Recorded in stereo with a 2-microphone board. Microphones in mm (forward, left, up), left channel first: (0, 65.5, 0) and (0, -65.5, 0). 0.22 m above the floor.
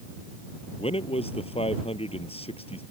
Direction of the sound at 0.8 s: 50° left (ahead or behind).